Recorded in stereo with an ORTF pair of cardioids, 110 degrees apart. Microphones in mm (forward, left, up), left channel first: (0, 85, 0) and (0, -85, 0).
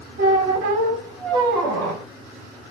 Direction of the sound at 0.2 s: 65° right.